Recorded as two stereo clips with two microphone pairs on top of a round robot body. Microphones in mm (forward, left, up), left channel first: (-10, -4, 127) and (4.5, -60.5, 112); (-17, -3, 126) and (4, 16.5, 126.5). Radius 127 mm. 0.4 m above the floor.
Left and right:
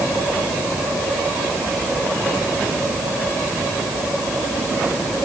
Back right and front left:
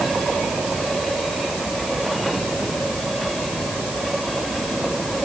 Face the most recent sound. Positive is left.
No sound to turn to.